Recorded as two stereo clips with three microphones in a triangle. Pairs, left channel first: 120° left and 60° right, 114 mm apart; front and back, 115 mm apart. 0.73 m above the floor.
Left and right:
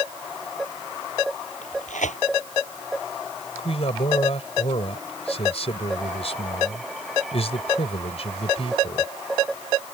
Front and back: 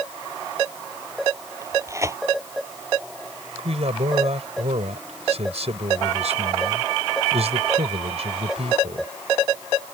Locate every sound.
1.6 s tearing paper: 115° left
3.6 s a man speaking: 150° left